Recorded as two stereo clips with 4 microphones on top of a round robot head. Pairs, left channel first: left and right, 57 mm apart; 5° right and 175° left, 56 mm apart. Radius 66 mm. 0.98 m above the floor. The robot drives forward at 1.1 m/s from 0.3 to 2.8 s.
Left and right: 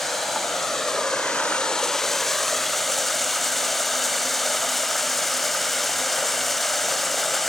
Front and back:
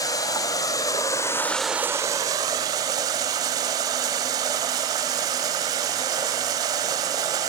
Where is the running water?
5° left, 1.6 m; by 7.5 s 175° left, 1.4 m.